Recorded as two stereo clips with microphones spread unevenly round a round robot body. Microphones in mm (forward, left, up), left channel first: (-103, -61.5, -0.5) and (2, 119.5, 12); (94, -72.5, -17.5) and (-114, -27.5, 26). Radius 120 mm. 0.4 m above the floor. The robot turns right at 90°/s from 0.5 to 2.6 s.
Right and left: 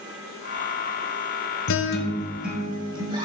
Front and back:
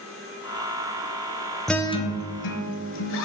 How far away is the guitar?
About 1.0 m.